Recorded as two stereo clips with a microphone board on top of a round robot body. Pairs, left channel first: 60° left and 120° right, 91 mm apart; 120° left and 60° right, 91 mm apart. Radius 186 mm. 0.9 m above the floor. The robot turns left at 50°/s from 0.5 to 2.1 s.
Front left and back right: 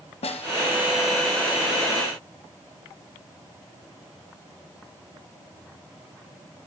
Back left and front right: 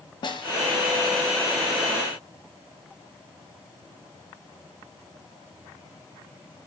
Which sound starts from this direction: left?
A snare drum, at 0.2 s.